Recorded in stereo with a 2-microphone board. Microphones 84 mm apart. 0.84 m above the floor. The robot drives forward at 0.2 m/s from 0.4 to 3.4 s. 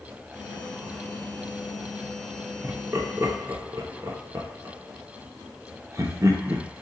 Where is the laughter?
30° right (ahead or behind), 0.7 m; by 6.7 s 35° right (ahead or behind), 0.6 m.